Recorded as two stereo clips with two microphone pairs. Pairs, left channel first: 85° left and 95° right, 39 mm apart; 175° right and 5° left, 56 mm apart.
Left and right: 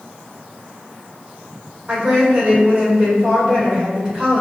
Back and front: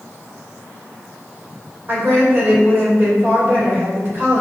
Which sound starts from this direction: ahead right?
A woman speaking, at 1.9 s.